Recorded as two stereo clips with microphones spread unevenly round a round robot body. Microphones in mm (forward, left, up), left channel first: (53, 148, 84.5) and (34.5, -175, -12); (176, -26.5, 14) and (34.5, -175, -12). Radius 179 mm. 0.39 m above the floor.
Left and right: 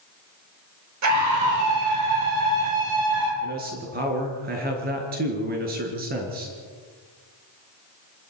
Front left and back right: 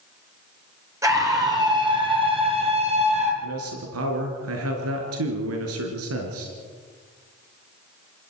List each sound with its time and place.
1.0 s a scream: 60° right, 8.5 m; by 3.3 s 75° right, 10 m
3.4 s a man speaking: 155° right, 5 m